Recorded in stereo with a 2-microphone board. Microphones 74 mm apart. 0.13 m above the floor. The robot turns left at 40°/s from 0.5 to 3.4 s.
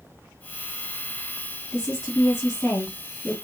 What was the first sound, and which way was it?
A woman speaking, 100° left.